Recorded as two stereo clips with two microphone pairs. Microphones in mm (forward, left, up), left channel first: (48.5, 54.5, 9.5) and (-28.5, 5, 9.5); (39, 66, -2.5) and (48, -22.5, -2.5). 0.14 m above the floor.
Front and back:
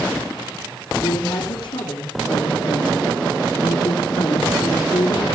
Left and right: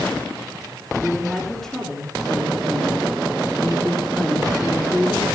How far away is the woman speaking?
About 5.5 m.